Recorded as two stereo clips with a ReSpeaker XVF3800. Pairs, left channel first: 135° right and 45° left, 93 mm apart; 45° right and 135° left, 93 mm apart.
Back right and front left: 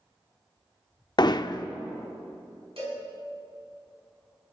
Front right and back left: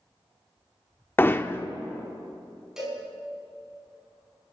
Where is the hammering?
110° right, 0.5 m.